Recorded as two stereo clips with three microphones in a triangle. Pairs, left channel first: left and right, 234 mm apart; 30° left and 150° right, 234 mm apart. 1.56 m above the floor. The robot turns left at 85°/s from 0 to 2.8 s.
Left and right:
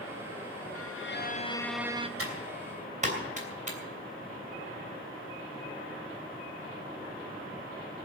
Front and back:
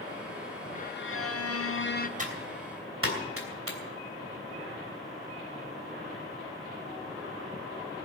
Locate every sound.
0.8 s a violin: 85° left, 0.9 m; by 2.1 s 30° right, 0.9 m
2.2 s typing on a keyboard: 95° right, 3 m; by 3.8 s 145° right, 3 m